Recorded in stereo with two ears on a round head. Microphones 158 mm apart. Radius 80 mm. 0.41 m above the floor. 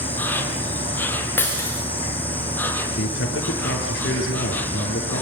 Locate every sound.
0.0 s an insect: 10° left (ahead or behind), 2.5 m
1.4 s breaking glass: 15° left (ahead or behind), 6 m
3.0 s a man speaking: 65° left (ahead or behind), 7.5 m